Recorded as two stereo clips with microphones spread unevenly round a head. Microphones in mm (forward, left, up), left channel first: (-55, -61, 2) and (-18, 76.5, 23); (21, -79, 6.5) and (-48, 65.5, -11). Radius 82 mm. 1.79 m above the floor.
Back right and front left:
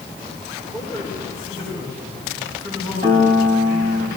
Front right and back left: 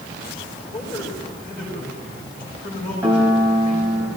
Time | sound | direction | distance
0.7 | a man speaking | straight ahead | 8.5 m
3.0 | a piano | 30° left | 4.5 m